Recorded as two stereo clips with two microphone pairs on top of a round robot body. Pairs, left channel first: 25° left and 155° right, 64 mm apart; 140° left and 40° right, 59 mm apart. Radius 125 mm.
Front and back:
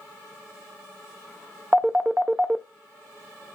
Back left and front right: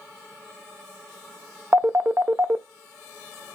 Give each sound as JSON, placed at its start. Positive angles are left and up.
{"t": 1.7, "sound": "a phone ringing", "azimuth_deg": -95, "distance_m": 0.6}